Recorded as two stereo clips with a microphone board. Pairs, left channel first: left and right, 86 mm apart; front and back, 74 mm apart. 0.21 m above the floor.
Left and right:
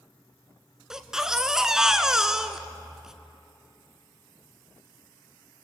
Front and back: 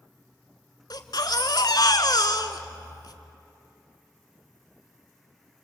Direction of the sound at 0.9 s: 5° right.